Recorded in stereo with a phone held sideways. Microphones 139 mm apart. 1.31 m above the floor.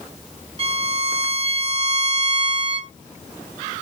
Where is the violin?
45° right (ahead or behind), 1.2 m.